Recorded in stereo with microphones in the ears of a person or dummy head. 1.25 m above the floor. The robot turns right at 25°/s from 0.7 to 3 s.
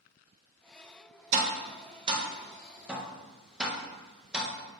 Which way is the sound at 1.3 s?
45° right (ahead or behind).